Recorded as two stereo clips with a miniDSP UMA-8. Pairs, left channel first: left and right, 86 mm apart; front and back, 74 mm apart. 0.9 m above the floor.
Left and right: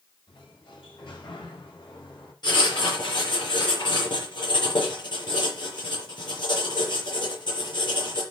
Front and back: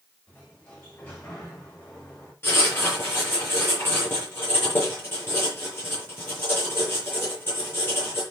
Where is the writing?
60° left, 7 m.